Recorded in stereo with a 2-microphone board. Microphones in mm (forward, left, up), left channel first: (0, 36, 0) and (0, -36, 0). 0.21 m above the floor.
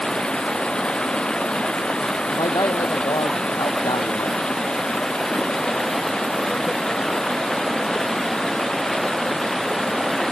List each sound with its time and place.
0.0 s running water: 10° left (ahead or behind)
2.3 s a man speaking: 60° left (ahead or behind)